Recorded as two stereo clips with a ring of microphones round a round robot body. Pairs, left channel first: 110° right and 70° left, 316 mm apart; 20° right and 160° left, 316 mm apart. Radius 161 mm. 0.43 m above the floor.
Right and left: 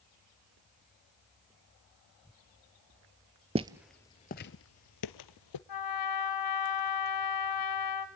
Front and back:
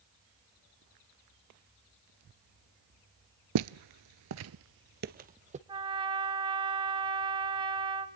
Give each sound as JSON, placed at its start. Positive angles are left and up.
{"t": 3.5, "sound": "footsteps", "azimuth_deg": 135, "distance_m": 0.6}
{"t": 5.7, "sound": "a trumpet", "azimuth_deg": -130, "distance_m": 2.5}